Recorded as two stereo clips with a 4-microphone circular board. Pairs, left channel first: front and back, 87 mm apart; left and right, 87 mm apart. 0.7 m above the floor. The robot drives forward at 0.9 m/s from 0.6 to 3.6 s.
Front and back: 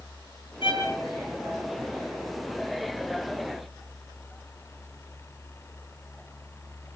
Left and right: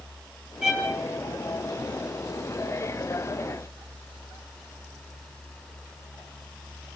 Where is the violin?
10° right, 9.5 m.